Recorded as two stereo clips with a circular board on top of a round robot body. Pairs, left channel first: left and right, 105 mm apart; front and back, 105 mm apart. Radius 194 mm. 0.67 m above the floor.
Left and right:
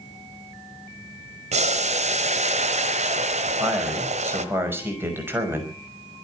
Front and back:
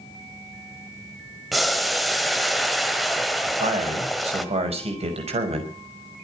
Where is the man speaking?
160° right, 6 m.